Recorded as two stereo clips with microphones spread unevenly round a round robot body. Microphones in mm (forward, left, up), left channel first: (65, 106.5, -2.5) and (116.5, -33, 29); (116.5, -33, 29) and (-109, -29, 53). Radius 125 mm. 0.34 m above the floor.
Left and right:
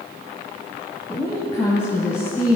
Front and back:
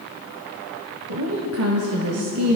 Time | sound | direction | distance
1.1 | a woman speaking | straight behind | 1.8 m